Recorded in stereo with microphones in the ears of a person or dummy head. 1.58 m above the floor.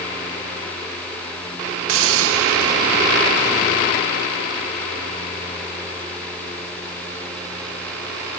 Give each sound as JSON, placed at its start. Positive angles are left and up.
{"t": 1.9, "sound": "a hiss", "side_deg": -80, "distance_m": 1.0}